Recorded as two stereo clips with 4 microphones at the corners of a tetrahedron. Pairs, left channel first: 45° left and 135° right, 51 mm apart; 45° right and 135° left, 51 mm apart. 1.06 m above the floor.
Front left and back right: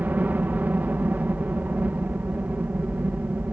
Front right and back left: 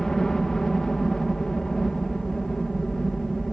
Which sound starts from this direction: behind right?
A helicopter, at 0.0 s.